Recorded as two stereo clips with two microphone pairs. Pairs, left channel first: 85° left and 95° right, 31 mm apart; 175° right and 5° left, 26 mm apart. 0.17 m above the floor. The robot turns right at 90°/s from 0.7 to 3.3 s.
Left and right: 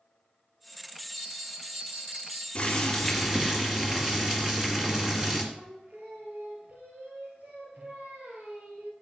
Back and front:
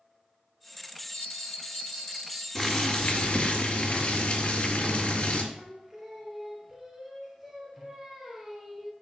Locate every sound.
1.1 s a bell: 150° left, 2.5 m; by 2.5 s 90° right, 2.5 m
2.5 s boiling: 125° left, 2.5 m; by 5.4 s 165° right, 2.5 m
5.5 s singing: 75° right, 2 m